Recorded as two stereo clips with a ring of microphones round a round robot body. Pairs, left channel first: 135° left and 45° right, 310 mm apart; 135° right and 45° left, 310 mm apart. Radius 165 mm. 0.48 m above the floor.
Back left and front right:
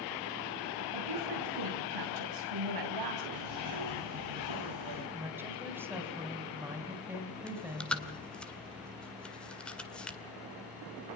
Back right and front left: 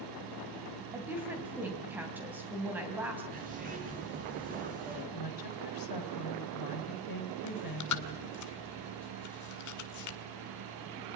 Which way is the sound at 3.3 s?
20° right.